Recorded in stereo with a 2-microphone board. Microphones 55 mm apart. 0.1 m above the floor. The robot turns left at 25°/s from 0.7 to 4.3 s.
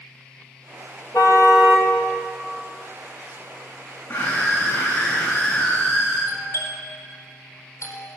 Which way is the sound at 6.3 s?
60° left (ahead or behind).